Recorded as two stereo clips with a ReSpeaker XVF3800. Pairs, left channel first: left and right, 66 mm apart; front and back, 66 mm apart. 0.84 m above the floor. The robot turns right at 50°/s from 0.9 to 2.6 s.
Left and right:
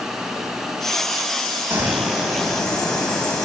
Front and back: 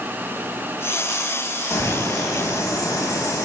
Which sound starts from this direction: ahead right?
A bird, at 1.7 s.